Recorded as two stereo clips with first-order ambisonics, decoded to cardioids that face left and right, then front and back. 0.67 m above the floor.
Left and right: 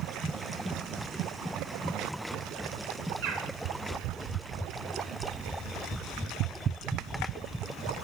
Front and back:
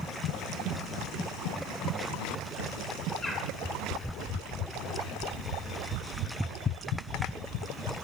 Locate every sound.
3.2 s a bird: 80° right, 1.9 m